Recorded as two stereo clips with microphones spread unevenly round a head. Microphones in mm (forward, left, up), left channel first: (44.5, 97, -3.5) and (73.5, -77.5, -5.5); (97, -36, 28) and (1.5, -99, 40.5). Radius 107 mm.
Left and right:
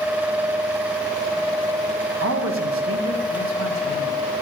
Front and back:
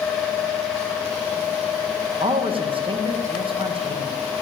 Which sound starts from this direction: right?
A man speaking, at 2.2 s.